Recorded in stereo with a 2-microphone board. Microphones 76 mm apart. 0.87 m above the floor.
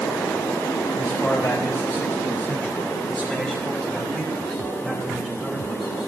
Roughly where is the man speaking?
Left.